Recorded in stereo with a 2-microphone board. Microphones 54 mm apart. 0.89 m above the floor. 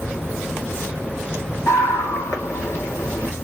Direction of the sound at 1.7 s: 55° left (ahead or behind).